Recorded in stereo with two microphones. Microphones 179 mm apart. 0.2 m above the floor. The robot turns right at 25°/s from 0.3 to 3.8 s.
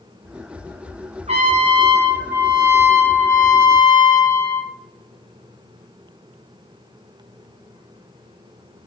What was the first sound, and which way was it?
A trumpet, 40° right.